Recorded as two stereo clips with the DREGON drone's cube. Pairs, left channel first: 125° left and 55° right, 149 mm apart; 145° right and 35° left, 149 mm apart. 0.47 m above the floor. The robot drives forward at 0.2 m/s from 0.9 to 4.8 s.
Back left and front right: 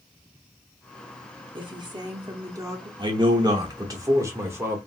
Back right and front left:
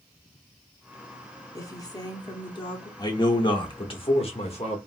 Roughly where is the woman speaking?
Right.